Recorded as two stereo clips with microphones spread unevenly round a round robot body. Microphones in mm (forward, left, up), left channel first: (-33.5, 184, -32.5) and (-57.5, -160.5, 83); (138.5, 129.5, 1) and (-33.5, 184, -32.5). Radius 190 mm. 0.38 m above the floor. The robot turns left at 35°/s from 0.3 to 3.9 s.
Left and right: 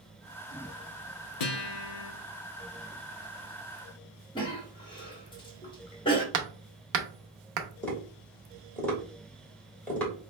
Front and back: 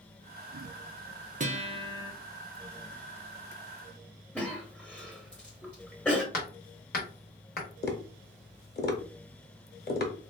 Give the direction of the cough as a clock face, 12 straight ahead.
9 o'clock.